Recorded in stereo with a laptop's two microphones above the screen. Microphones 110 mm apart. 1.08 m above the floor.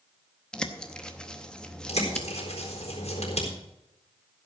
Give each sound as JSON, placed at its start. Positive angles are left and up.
{"t": 0.5, "sound": "a bird", "side_deg": 10, "distance_m": 0.8}
{"t": 1.9, "sound": "a bird", "side_deg": 75, "distance_m": 4.0}